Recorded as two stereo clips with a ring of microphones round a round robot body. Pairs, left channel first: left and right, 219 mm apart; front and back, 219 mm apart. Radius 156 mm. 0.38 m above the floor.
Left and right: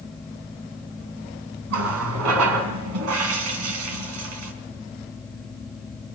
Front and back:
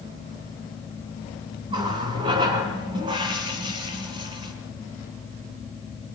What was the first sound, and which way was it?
A running tap, 105° right.